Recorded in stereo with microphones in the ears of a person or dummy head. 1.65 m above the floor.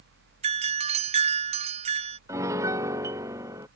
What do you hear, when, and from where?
0.4 s a doorbell: 35° right (ahead or behind)
2.3 s a piano: 20° right (ahead or behind)